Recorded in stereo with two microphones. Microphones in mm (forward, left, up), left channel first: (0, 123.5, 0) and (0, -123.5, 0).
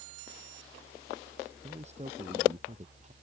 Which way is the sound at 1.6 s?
25° right (ahead or behind).